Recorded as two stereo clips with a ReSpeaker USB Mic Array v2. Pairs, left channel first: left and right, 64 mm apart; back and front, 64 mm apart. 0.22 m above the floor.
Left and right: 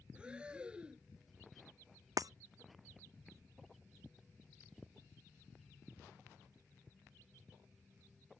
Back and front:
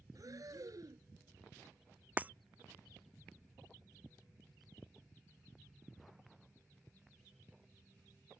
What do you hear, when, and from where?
0.1 s breathing: 15° right
2.2 s breaking glass: 65° right